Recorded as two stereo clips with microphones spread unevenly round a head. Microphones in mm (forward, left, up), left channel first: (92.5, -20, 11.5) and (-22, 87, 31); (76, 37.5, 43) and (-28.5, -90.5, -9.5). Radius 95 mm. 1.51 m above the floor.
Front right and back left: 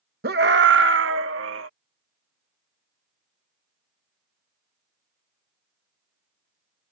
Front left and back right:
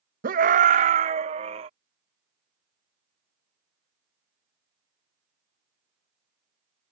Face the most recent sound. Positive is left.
turn(degrees=170)